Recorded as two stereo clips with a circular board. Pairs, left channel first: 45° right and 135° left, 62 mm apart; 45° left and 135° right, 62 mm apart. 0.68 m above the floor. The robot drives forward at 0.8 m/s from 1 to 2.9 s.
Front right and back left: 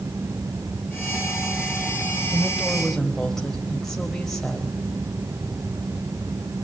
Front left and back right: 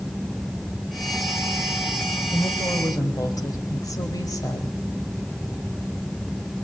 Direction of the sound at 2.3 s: 35° left.